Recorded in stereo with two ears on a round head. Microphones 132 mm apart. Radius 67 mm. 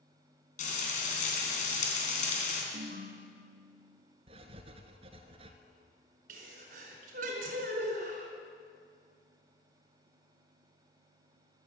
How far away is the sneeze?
About 4.5 m.